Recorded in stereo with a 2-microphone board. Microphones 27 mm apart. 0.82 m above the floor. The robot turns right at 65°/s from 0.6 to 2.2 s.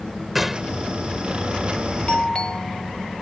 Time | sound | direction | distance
0.3 | a gunshot | 5° right (ahead or behind) | ?
2.1 | a doorbell | 40° left (ahead or behind) | ?